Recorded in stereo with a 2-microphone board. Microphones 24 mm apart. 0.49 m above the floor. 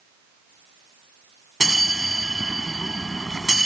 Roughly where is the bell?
Centre.